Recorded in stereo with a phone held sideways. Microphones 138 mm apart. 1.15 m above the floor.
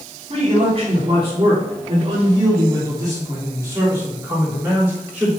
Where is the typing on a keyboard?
I don't hear typing on a keyboard.